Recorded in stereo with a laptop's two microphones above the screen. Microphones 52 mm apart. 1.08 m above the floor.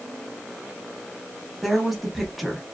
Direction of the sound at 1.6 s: Centre (ahead or behind).